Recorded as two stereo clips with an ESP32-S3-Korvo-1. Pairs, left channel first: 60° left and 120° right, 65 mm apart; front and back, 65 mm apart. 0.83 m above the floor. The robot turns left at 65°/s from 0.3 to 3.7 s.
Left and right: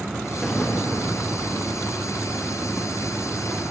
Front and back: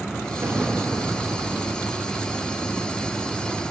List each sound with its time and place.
0.4 s an explosion: 140° left, 0.8 m; by 1.4 s 75° left, 0.8 m